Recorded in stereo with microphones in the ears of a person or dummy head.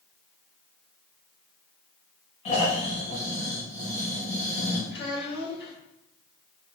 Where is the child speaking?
60° left (ahead or behind), 1.9 m.